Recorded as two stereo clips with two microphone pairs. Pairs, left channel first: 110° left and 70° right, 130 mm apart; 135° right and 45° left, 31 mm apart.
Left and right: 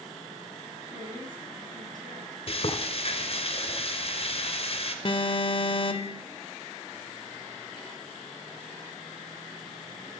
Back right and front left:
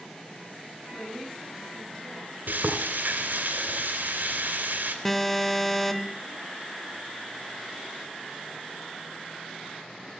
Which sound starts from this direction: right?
A woman speaking, at 0.9 s.